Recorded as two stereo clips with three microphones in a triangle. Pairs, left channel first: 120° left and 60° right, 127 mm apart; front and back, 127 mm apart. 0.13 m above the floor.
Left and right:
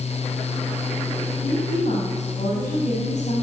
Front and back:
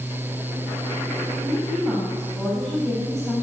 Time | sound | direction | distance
1.4 | a woman speaking | 110° left | 7.5 m